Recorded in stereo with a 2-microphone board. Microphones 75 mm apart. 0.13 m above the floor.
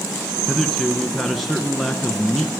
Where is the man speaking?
5° left (ahead or behind), 1.1 m.